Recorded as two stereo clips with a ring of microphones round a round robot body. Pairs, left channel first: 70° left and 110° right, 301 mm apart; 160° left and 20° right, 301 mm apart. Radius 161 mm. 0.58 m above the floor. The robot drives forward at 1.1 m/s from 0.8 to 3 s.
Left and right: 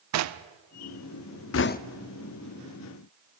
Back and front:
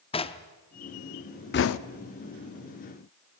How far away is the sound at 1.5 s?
About 0.5 m.